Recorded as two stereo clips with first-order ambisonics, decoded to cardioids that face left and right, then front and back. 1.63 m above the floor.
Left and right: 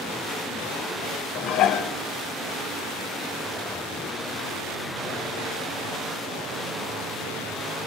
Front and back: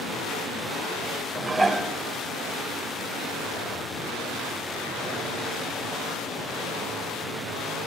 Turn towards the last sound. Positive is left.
turn(degrees=100)